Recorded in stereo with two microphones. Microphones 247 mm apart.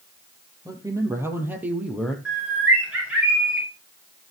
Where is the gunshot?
No gunshot in this recording.